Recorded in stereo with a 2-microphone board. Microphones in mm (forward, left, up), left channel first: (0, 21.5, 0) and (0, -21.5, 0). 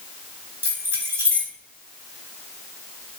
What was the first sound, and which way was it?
Keys jangling, 65° right (ahead or behind).